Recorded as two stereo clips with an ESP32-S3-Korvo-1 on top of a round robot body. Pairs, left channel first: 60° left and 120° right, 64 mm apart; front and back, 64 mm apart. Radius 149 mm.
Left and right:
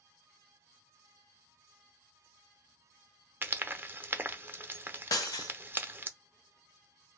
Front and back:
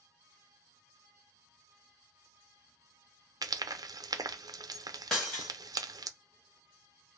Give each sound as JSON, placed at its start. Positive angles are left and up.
{"t": 3.4, "sound": "frying", "azimuth_deg": 180, "distance_m": 0.6}
{"t": 5.1, "sound": "breaking glass", "azimuth_deg": 80, "distance_m": 0.6}